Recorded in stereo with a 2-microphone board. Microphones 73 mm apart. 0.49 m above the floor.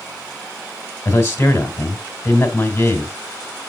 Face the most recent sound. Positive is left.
turn(degrees=45)  # may be behind; listen again after turning